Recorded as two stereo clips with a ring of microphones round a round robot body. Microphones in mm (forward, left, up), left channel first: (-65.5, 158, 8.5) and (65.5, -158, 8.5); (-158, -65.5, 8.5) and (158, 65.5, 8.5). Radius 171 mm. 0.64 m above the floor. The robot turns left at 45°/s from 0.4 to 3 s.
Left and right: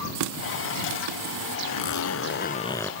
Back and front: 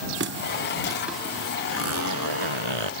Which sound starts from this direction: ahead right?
A running tap, at 0.1 s.